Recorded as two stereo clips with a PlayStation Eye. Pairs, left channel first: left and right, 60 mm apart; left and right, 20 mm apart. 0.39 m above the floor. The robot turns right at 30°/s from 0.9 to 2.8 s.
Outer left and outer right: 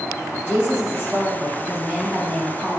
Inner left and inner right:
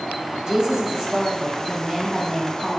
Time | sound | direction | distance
0.5 | a woman speaking | 30° right | 3 m